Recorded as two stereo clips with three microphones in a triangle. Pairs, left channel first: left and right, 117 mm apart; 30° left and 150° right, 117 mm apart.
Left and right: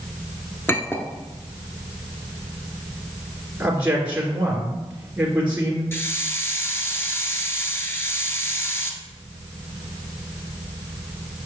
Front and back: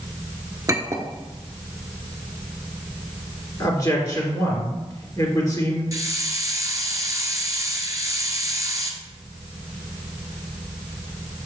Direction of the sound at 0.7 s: 160° left.